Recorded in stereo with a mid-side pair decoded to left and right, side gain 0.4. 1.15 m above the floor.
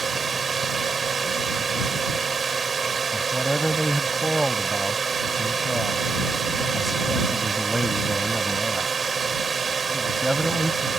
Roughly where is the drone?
Ahead right.